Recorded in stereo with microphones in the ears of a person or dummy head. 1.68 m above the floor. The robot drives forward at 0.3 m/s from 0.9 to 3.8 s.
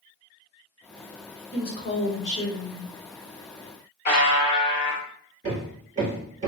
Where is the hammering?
30° right (ahead or behind), 1.4 m.